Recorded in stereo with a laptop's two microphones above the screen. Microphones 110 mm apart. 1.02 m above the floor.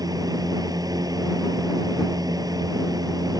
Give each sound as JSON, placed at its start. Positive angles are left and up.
{"t": 0.0, "sound": "a fan", "side_deg": -35}